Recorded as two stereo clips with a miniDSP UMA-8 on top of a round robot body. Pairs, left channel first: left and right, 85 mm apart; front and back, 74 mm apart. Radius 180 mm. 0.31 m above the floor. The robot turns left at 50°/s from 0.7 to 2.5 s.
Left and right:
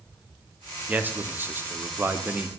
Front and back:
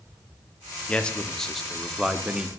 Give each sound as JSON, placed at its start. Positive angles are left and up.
{"t": 0.9, "sound": "a man speaking", "azimuth_deg": -50, "distance_m": 0.9}